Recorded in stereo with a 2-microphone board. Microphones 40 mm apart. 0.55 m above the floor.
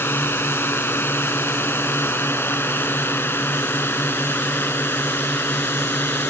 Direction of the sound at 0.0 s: 80° left.